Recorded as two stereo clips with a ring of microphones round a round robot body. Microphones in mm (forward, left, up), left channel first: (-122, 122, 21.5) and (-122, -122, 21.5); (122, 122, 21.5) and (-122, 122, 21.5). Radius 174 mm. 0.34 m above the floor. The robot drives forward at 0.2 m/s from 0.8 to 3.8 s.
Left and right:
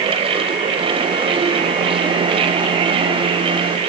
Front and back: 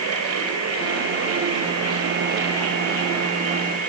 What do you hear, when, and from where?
Only background noise.